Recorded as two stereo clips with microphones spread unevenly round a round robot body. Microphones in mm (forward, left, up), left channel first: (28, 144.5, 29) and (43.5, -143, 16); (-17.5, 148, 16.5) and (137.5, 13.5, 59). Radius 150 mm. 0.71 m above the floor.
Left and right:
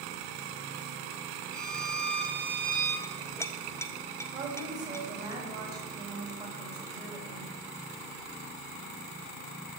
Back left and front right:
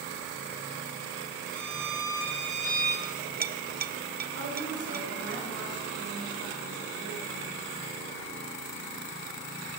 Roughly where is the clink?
Ahead.